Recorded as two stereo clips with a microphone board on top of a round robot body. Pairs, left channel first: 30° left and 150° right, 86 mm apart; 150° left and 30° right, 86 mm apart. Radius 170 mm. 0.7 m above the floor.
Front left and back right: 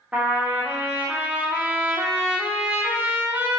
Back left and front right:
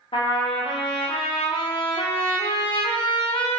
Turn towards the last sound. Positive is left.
turn(degrees=135)